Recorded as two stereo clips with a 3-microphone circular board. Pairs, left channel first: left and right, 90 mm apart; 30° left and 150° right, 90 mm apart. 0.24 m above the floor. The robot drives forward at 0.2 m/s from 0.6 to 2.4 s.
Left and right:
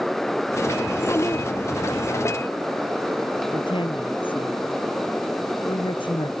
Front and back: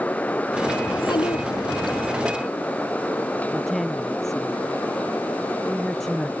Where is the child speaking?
35° left.